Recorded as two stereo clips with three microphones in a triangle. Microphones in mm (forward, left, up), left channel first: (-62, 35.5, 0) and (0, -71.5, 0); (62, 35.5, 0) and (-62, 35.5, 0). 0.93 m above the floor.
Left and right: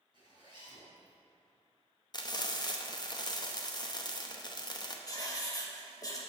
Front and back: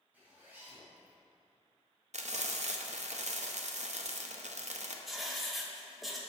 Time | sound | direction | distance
0.1 | a zipper | 105° right | 2 m
2.1 | frying | 175° left | 0.6 m
5.1 | writing | 90° left | 1.0 m